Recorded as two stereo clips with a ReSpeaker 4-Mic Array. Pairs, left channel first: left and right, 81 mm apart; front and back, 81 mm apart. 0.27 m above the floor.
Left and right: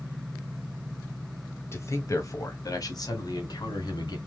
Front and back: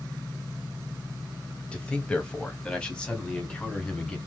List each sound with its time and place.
1.7 s a man speaking: 70° left, 1.5 m; by 4.2 s 80° left, 2.5 m